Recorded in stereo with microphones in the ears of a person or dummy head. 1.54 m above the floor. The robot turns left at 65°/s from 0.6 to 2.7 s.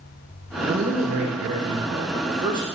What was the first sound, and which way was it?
A man speaking, 35° right.